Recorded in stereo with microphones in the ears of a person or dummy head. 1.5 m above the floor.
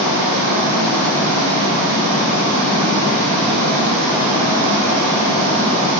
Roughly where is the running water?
Right.